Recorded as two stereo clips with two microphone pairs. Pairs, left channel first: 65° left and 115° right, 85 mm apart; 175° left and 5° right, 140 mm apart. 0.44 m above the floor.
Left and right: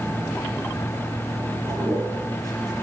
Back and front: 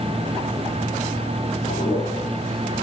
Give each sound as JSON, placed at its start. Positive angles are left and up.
{"t": 1.7, "sound": "a toilet flushing", "azimuth_deg": -165, "distance_m": 5.5}